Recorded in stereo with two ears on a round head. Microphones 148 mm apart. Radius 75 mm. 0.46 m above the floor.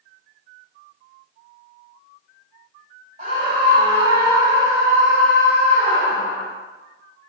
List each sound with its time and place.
3.2 s a scream: 45° right (ahead or behind), 1.5 m; by 6.5 s 45° left (ahead or behind), 1.0 m